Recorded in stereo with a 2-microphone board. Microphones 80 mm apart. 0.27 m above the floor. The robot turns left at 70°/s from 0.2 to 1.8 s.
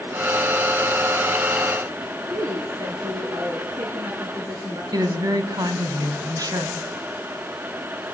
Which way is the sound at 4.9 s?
50° right (ahead or behind).